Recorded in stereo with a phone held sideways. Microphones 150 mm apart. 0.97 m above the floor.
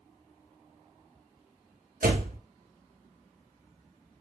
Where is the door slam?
70° right (ahead or behind), 0.7 m.